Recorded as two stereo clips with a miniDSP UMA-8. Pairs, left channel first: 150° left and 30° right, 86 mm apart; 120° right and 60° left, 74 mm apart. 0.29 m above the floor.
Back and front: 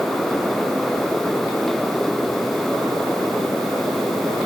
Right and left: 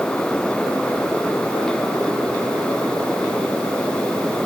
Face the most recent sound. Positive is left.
No sound to turn to.